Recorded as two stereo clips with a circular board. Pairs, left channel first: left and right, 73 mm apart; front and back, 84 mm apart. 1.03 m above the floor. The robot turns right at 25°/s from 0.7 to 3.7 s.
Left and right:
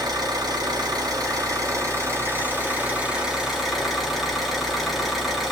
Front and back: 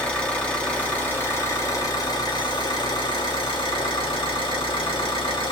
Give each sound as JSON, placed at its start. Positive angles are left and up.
{"t": 0.0, "sound": "an engine running", "azimuth_deg": -75, "distance_m": 2.0}